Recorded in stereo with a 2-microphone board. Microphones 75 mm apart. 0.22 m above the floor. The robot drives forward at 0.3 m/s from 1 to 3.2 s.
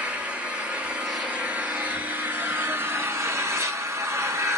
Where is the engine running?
20° right (ahead or behind), 1.1 m; by 4.6 s 40° right (ahead or behind), 0.5 m.